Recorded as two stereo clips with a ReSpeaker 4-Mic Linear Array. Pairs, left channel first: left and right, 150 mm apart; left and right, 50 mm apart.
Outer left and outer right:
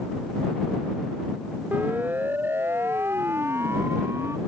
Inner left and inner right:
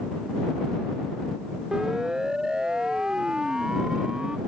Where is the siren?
10° right (ahead or behind); by 4.4 s 15° right (ahead or behind).